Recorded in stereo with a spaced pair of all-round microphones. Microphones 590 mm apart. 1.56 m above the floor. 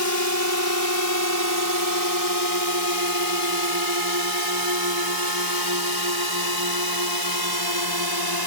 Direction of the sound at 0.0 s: 30° right (ahead or behind).